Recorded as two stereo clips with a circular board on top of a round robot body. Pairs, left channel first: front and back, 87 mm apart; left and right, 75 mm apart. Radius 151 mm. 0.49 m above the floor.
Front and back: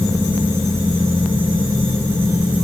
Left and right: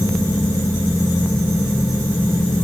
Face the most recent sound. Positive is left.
No sound to turn to.